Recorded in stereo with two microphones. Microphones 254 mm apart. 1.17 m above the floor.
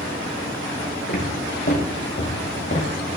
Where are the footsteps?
50° left (ahead or behind), 3.5 m.